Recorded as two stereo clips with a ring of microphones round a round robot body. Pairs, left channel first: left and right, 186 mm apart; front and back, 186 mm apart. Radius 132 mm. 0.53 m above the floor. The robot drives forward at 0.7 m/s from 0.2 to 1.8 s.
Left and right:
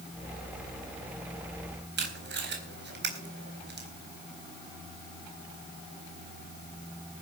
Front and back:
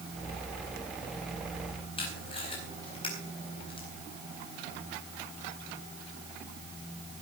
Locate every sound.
2.0 s tape being pulled: 70° right, 4 m